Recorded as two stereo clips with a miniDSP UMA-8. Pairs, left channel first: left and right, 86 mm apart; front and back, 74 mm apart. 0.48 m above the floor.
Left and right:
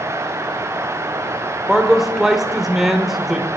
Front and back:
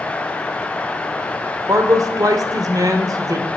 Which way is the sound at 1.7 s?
175° right.